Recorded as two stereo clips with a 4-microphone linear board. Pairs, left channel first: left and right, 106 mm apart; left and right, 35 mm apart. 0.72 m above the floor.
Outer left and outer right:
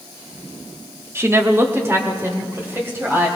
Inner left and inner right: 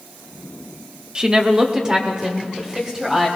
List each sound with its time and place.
1.1 s a woman speaking: 25° right (ahead or behind), 0.9 m; by 3.3 s 20° right (ahead or behind), 4 m